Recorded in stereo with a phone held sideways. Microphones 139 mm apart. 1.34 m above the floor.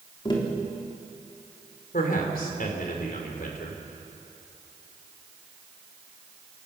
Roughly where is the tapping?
Left.